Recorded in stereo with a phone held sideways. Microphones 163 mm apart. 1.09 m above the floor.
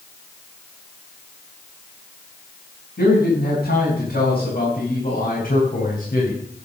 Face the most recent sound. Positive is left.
turn(degrees=70)  # may be behind; listen again after turning